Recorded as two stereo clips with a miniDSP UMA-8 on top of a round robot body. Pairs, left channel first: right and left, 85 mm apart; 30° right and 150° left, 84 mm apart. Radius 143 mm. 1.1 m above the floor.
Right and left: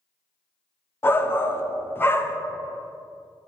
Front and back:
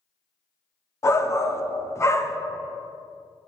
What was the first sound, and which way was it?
A shout, 50° right.